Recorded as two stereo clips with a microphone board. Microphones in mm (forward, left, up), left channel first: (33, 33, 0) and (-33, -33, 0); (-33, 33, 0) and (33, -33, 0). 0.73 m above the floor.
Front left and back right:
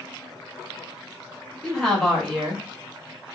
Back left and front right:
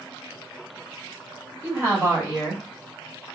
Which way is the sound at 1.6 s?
40° right.